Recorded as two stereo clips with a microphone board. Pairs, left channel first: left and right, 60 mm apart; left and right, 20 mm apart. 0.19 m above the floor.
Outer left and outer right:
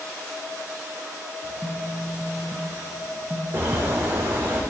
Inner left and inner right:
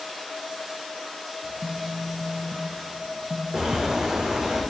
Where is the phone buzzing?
35° left (ahead or behind), 1.5 m.